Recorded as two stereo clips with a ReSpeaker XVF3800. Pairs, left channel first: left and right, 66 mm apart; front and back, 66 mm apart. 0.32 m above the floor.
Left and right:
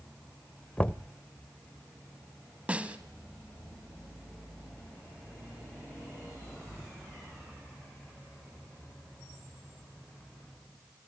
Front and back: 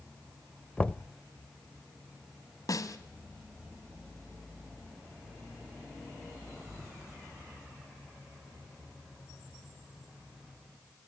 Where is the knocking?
50° left, 0.6 m.